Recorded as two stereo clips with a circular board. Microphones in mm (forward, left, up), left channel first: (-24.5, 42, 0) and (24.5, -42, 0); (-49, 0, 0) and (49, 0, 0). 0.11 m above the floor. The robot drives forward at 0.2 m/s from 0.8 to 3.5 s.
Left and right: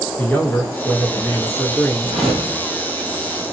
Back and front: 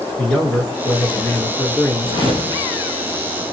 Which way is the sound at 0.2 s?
135° left.